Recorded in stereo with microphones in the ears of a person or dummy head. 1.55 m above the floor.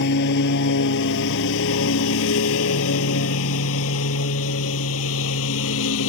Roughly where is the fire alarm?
No fire alarm in this recording.